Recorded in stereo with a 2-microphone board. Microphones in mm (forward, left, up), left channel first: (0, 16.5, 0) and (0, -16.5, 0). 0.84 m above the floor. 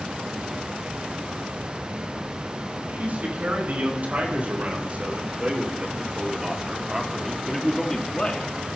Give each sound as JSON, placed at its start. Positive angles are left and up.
{"t": 2.9, "sound": "a man speaking", "side_deg": -50, "distance_m": 5.0}